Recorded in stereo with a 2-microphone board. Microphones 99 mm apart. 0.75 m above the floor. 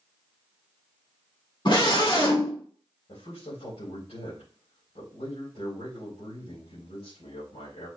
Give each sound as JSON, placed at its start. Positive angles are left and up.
{"t": 1.6, "sound": "a scream", "side_deg": 55, "distance_m": 2.5}
{"t": 3.1, "sound": "a man speaking", "side_deg": 80, "distance_m": 5.0}